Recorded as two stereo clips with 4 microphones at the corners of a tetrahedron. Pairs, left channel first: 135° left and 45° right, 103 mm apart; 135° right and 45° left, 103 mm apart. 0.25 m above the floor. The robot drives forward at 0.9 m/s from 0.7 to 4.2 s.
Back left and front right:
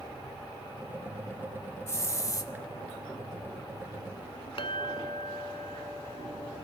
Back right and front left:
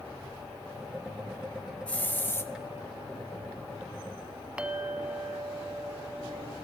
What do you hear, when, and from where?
1.9 s a hiss: 160° left, 1.1 m; by 2.5 s 170° left, 1.5 m
4.6 s a clink: 125° left, 1.3 m